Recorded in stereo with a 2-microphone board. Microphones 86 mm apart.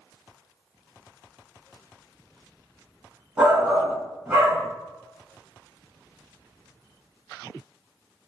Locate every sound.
3.4 s a shout: 15° right (ahead or behind), 1.1 m